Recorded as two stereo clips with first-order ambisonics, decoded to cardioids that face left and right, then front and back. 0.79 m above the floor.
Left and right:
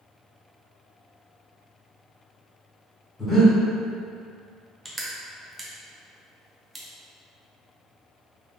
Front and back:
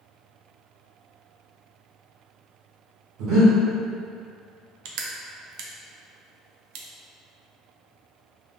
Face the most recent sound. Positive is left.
turn(degrees=-175)